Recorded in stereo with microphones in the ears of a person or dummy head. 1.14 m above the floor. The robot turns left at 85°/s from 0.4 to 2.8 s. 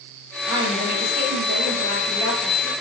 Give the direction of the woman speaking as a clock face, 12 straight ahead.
12 o'clock.